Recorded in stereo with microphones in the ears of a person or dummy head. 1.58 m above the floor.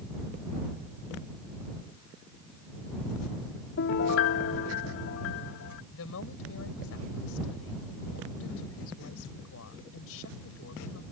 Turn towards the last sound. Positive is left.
turn(degrees=75)  # may be behind; listen again after turning